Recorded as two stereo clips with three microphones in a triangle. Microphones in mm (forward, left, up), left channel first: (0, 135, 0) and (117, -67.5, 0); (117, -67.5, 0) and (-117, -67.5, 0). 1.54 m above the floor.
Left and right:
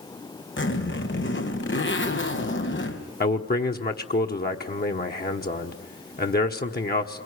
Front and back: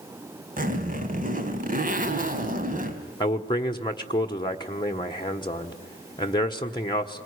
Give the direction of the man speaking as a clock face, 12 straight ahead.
10 o'clock.